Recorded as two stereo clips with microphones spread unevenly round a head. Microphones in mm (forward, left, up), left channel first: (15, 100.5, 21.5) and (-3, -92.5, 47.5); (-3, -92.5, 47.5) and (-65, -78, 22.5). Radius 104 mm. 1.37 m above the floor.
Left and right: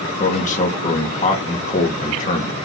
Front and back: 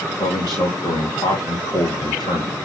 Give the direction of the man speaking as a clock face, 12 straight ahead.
11 o'clock.